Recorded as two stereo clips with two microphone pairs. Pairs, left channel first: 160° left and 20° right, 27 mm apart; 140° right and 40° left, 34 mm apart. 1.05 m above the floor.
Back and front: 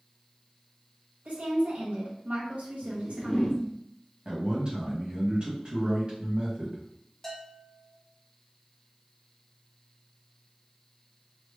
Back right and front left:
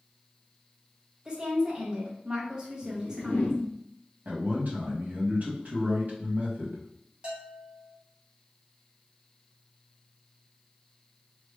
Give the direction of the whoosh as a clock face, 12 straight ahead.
5 o'clock.